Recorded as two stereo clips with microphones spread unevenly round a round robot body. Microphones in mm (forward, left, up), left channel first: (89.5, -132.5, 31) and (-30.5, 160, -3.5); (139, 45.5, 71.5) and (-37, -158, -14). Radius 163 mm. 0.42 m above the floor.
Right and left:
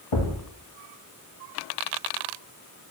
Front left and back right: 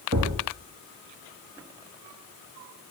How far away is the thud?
About 2 m.